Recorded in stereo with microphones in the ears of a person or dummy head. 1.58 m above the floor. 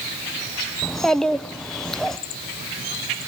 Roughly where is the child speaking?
Centre.